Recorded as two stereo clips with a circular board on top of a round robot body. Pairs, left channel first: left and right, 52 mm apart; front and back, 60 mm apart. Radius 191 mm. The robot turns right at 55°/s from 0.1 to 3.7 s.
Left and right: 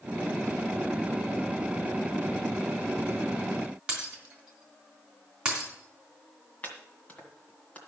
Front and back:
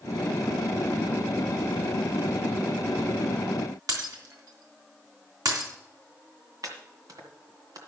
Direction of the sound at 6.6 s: 155° left.